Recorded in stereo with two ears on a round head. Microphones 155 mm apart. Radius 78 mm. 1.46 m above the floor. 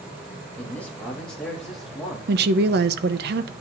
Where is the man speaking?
10° left (ahead or behind), 3 m; by 2.2 s centre (ahead or behind), 3.5 m.